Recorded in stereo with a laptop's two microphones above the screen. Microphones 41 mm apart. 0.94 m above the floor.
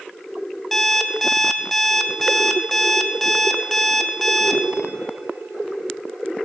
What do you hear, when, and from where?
0.7 s an alarm clock: 5° left (ahead or behind), 0.7 m